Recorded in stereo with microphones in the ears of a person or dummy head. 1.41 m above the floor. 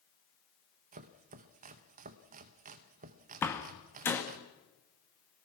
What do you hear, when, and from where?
0.9 s chopping: 40° right (ahead or behind), 1.0 m
3.4 s a door slam: 10° left (ahead or behind), 2 m